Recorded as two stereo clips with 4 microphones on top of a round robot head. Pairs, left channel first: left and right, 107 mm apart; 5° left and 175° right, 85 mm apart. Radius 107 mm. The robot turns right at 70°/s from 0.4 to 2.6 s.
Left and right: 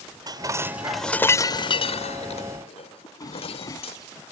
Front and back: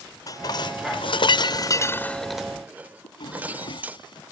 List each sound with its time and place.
0.3 s dishes clattering: 40° right; by 4.0 s 115° left
3.0 s a drawer: 35° left